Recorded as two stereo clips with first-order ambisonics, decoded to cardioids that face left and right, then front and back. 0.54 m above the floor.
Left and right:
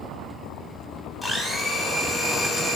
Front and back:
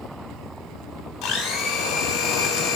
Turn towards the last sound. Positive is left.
turn(degrees=0)